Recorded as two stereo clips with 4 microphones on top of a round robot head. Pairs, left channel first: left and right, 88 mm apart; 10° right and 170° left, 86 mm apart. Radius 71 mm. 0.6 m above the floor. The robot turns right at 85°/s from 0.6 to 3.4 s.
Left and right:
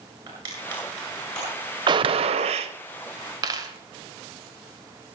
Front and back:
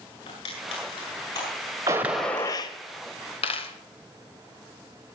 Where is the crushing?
30° right, 8 m; by 2.5 s 130° left, 8 m.